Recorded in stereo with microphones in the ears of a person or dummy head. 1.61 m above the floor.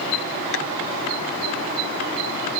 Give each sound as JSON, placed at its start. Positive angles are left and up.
{"t": 0.5, "sound": "tapping", "side_deg": 65}